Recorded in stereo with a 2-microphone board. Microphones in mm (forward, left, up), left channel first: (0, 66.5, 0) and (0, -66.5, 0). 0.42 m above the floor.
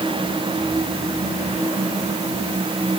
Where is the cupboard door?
I don't hear a cupboard door.